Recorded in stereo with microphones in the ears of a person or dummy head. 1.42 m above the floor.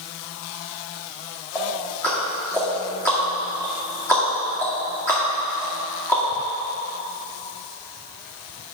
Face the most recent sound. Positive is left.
turn(degrees=15)  # may be behind; listen again after turning